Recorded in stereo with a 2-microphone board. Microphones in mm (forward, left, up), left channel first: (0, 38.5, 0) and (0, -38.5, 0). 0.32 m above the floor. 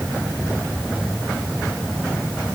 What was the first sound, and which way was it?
Only background noise.